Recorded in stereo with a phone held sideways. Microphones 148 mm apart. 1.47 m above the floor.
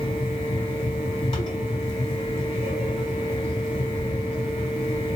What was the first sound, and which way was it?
A fan, 40° left (ahead or behind).